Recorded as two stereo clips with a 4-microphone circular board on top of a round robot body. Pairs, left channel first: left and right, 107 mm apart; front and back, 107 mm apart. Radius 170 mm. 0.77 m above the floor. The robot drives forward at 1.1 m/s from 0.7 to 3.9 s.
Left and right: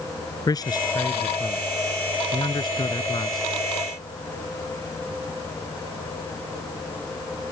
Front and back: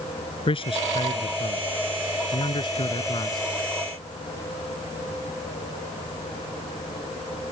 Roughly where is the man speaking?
Ahead left.